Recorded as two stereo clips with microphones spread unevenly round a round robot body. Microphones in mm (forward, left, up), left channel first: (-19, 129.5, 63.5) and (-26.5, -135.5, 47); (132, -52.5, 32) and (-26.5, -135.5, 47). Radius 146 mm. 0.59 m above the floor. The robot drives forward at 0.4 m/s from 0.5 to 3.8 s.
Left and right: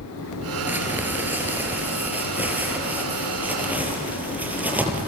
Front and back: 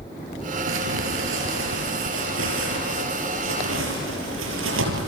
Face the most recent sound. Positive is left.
turn(degrees=-175)